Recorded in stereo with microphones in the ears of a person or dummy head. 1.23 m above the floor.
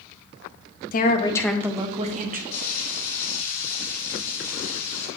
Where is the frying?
40° left (ahead or behind), 2 m.